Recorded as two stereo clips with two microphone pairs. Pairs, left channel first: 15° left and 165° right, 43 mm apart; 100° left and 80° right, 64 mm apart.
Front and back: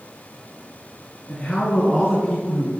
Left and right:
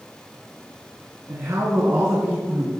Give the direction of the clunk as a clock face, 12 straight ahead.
I don't hear a clunk.